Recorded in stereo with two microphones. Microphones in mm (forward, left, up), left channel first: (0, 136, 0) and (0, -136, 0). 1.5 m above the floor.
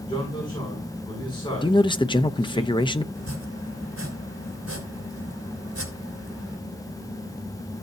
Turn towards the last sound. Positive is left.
turn(degrees=-65)  # may be behind; listen again after turning